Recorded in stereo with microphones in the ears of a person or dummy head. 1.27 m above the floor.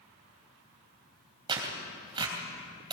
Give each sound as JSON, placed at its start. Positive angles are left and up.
{"t": 1.5, "sound": "tearing paper", "side_deg": -30, "distance_m": 3.0}